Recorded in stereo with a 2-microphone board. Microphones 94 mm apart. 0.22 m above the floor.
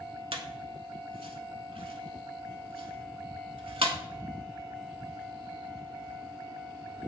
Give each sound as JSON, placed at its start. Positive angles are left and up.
{"t": 0.3, "sound": "a squeak", "side_deg": -75, "distance_m": 0.6}